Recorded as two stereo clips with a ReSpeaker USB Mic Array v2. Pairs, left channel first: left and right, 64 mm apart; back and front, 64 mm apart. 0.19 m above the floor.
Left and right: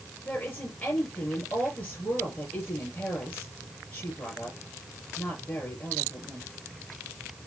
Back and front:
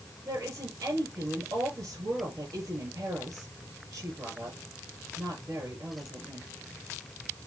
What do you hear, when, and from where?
0.2 s a woman speaking: 35° left, 4.5 m